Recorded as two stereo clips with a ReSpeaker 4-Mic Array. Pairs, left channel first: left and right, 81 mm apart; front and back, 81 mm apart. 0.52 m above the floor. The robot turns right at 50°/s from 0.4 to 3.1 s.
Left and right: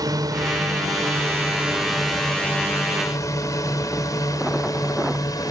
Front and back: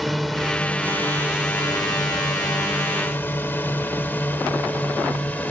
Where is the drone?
90° right; by 5.5 s 65° left.